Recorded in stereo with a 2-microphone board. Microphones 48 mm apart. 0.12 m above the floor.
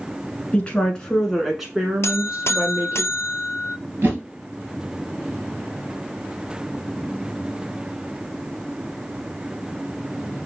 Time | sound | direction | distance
0.5 | a woman speaking | 25° left (ahead or behind) | 1.2 m
2.0 | a buzzer | 70° left (ahead or behind) | 0.6 m
4.0 | a whoosh | 45° right (ahead or behind) | 1.8 m